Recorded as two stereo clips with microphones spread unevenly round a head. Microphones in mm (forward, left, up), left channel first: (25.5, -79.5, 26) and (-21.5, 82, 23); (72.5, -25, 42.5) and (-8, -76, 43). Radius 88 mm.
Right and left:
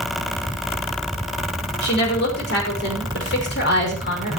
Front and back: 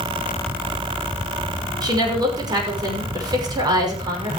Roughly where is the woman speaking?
Right.